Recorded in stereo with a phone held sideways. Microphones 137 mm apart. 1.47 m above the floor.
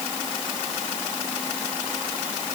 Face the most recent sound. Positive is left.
No sound to turn to.